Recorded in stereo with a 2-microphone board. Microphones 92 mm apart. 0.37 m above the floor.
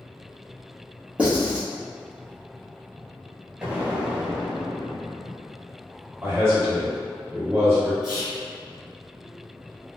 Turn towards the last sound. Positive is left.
turn(degrees=-5)  # may be behind; listen again after turning